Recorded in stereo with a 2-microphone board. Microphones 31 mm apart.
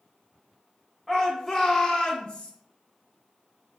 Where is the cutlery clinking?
No cutlery clinking in this recording.